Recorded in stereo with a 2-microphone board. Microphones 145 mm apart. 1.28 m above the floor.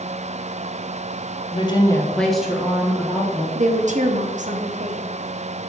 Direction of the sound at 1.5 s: 40° left (ahead or behind).